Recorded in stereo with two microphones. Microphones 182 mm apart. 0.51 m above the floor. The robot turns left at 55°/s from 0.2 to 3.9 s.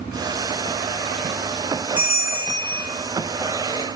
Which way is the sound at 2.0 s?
125° left.